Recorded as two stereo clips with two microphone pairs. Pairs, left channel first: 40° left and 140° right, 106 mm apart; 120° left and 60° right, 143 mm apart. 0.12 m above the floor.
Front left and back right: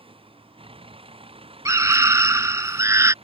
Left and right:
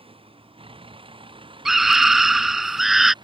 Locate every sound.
0.0 s a vehicle: 110° right; by 3.2 s 115° right
1.6 s a scream: 145° right